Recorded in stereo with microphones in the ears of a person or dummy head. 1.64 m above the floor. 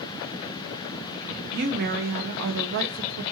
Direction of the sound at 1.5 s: 55° right (ahead or behind).